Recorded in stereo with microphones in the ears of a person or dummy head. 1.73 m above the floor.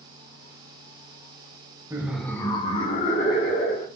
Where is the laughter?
15° right (ahead or behind), 0.5 m; by 3.9 s 60° left (ahead or behind), 1.1 m.